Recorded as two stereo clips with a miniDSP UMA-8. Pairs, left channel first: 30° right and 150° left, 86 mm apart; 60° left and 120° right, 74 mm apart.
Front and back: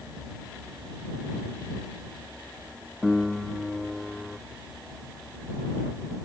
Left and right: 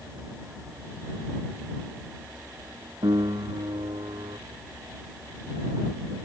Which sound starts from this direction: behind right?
A piano, at 3.0 s.